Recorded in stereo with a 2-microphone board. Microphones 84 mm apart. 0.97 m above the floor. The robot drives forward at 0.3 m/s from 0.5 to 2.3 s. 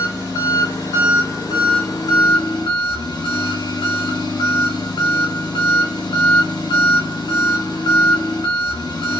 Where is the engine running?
45° left (ahead or behind), 1.3 m; by 9.2 s 60° left (ahead or behind), 1.0 m.